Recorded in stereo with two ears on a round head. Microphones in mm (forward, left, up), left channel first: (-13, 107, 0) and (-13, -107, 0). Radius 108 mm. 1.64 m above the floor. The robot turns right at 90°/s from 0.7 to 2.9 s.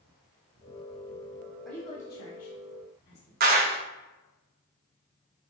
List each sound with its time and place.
1.6 s a woman speaking: centre (ahead or behind), 1.3 m; by 3.3 s 70° left (ahead or behind), 1.3 m
3.4 s a clap: 40° right (ahead or behind), 0.6 m